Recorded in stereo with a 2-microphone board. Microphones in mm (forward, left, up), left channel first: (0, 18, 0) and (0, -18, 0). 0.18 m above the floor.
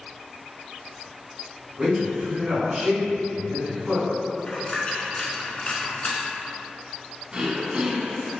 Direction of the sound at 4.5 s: 30° left (ahead or behind).